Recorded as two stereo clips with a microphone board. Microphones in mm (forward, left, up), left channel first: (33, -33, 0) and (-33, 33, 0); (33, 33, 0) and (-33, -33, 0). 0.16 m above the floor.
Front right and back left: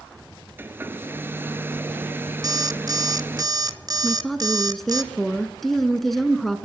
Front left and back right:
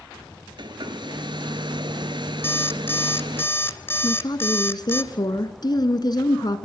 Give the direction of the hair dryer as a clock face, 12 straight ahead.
5 o'clock.